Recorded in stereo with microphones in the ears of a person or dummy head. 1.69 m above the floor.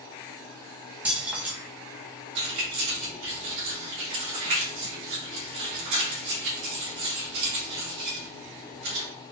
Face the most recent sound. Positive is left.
turn(degrees=-60)  # may be behind; listen again after turning